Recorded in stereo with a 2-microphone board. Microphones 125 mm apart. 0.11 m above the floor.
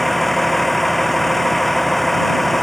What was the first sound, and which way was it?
A vehicle, centre (ahead or behind).